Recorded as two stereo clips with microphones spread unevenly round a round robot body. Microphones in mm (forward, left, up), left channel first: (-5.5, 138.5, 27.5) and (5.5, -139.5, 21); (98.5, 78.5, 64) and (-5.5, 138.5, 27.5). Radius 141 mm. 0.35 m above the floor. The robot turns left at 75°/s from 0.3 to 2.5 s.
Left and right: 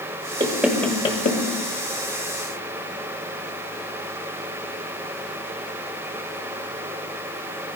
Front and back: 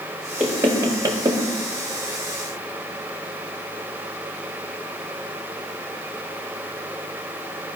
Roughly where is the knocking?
Behind right.